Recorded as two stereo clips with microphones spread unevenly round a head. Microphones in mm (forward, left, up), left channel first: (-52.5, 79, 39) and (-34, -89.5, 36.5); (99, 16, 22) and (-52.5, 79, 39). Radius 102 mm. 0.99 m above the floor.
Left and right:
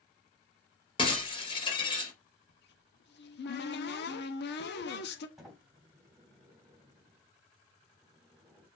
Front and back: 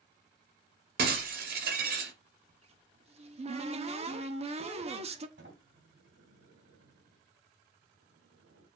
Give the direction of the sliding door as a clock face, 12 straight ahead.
6 o'clock.